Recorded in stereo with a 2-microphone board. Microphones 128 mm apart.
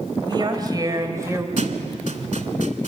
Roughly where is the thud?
Right.